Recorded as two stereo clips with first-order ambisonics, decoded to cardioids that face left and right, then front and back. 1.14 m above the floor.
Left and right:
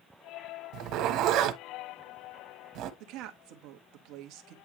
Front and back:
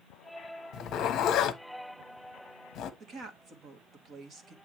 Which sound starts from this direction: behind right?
A woman speaking, at 3.0 s.